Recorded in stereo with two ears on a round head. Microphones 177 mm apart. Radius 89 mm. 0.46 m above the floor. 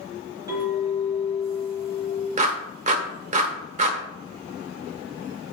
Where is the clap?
35° right (ahead or behind), 1.2 m.